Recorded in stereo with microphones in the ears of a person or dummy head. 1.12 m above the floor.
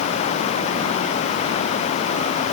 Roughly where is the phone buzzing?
No phone buzzing in this recording.